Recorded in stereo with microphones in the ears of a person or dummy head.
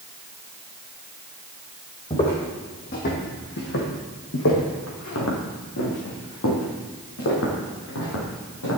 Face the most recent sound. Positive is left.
turn(degrees=70)  # may be behind; listen again after turning